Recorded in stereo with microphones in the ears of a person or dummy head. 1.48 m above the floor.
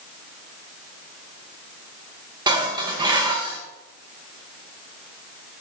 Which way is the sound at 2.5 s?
30° right (ahead or behind).